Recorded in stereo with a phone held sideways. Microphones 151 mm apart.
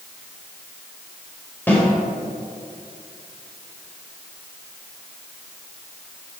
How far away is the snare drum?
About 3.5 m.